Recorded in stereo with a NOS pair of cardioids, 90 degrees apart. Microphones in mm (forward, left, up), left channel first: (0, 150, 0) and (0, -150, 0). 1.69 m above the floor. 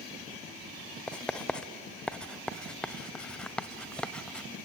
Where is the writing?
5° left, 0.9 m.